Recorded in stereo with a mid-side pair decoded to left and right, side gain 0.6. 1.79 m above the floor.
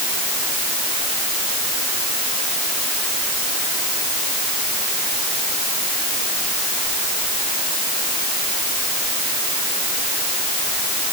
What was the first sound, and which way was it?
Only background noise.